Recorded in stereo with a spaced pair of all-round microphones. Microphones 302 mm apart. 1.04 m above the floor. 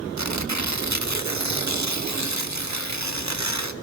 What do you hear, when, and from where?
0.2 s tearing paper: 65° right (ahead or behind), 1.5 m